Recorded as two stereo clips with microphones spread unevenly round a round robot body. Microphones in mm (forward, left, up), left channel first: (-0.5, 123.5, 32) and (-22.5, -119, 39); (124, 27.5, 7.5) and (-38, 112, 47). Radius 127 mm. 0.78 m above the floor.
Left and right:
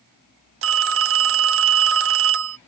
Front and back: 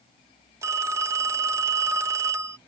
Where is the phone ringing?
125° right.